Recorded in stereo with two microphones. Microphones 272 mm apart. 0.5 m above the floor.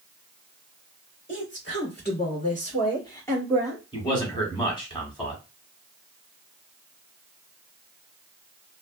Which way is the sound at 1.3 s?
45° left (ahead or behind).